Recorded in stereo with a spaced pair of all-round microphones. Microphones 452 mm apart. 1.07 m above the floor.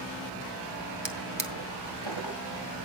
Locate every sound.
1.1 s a drawer: 70° right (ahead or behind), 2 m